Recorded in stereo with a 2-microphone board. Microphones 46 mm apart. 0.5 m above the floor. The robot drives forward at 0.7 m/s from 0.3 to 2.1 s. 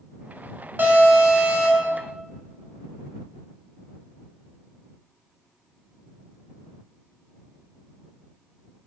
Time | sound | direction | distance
0.8 | an alarm | 45° right (ahead or behind) | 0.9 m